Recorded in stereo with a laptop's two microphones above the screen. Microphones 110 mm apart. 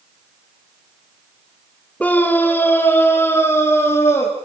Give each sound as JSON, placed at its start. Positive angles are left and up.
{"t": 2.0, "sound": "a scream", "side_deg": 10, "distance_m": 3.0}